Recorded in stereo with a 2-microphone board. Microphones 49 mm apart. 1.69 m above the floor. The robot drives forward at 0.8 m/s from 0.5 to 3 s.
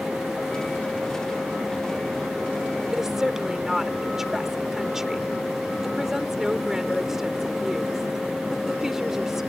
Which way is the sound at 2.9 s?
10° right (ahead or behind).